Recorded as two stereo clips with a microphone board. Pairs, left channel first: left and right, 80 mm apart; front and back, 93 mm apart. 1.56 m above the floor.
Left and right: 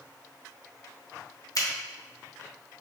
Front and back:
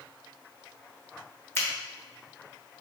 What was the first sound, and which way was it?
A finger snap, 60° left.